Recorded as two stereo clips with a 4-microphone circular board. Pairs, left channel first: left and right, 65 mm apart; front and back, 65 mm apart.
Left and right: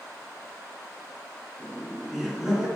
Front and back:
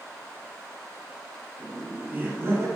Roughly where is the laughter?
Behind left.